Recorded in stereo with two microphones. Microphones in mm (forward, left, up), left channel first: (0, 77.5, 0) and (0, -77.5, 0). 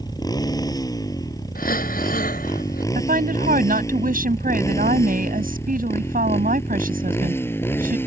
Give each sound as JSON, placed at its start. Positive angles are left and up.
{"t": 0.0, "sound": "a motorcycle", "side_deg": 25}
{"t": 1.6, "sound": "breathing", "side_deg": 70}
{"t": 3.0, "sound": "a woman speaking", "side_deg": -65}